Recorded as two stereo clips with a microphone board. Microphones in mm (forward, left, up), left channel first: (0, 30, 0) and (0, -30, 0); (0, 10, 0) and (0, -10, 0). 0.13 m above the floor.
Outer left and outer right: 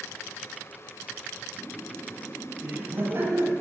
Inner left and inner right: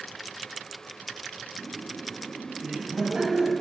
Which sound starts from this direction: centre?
Laughter, at 1.6 s.